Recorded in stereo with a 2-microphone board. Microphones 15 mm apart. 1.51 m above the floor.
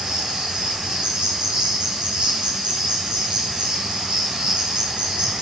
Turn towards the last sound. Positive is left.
turn(degrees=-70)  # may be behind; listen again after turning